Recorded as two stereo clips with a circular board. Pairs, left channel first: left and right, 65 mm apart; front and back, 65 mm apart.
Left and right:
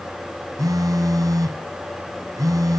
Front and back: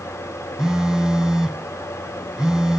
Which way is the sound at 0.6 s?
100° right.